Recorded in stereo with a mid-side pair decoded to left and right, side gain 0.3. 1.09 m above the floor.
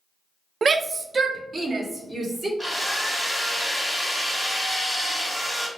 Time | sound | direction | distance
0.6 | a shout | 60° right | 0.5 m
2.6 | a drill | 15° right | 2 m